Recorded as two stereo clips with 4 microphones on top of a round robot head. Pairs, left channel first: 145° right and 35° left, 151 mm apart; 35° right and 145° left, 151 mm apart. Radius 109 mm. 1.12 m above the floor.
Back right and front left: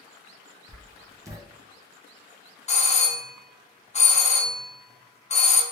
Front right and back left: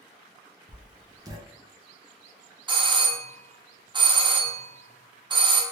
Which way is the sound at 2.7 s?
170° right.